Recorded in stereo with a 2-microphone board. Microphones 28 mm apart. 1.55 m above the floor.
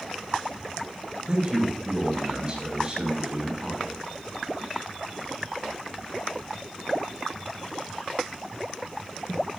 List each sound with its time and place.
1.3 s a man speaking: 25° right (ahead or behind), 6 m